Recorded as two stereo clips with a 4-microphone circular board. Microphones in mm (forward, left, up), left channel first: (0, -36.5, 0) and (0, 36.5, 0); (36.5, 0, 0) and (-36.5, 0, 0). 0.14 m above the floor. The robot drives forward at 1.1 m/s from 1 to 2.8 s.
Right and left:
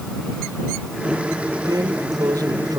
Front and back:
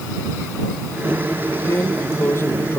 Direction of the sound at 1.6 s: 55° left.